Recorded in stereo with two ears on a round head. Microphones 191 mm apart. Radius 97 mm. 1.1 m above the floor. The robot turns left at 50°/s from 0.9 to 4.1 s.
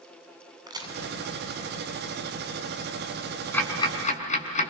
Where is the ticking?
5° left (ahead or behind), 5.5 m; by 4.7 s 35° left (ahead or behind), 5.5 m.